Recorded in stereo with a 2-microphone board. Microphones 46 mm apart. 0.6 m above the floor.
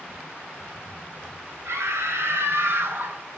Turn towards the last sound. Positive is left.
turn(degrees=-50)  # may be behind; listen again after turning